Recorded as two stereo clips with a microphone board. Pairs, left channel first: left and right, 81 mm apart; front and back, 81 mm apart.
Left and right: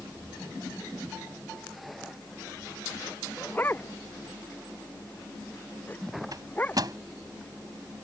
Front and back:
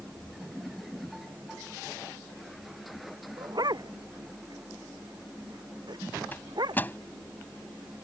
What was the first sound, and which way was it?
A dog barking, 155° left.